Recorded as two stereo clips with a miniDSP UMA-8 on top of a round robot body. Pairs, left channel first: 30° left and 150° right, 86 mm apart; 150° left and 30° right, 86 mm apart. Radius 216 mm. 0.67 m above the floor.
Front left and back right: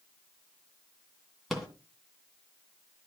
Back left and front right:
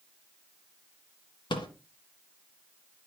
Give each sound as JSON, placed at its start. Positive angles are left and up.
{"t": 1.5, "sound": "a rattle", "azimuth_deg": 120, "distance_m": 2.0}